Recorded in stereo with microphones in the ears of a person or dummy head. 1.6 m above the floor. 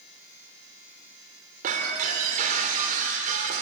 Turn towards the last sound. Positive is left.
turn(degrees=-45)  # may be behind; listen again after turning